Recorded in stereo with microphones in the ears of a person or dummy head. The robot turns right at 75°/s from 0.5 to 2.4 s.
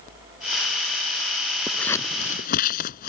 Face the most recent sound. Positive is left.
turn(degrees=55)  # may be behind; listen again after turning